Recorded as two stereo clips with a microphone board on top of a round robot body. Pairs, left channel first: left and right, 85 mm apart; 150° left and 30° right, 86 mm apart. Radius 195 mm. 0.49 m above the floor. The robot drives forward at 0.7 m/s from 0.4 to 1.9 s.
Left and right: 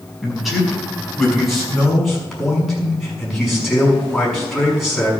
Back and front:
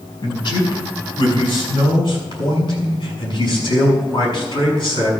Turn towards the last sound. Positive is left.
turn(degrees=180)